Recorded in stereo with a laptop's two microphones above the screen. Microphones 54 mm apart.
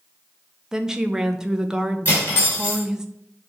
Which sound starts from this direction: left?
Cutlery clinking, at 2.0 s.